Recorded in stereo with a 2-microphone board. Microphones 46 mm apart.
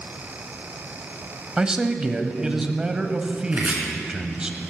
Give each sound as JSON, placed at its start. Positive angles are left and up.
{"t": 1.6, "sound": "a man speaking", "side_deg": -20, "distance_m": 1.1}
{"t": 3.5, "sound": "chopping", "side_deg": -30, "distance_m": 3.0}